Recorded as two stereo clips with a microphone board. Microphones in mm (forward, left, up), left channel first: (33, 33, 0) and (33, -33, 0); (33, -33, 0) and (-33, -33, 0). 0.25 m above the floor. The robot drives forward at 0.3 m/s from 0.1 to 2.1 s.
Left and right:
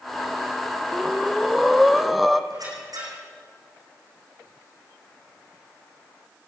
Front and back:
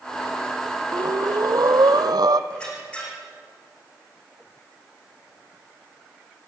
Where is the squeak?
75° right, 8 m.